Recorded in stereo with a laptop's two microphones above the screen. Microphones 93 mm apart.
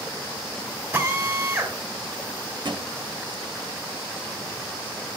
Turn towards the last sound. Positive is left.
turn(degrees=-55)  # may be behind; listen again after turning